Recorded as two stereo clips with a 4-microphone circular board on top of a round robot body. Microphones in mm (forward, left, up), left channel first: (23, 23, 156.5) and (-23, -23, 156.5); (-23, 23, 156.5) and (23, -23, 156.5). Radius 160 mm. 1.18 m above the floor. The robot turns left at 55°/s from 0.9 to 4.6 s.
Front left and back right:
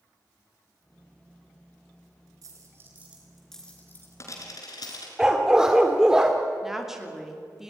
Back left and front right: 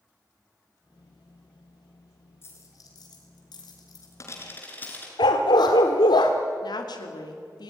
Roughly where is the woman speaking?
Behind left.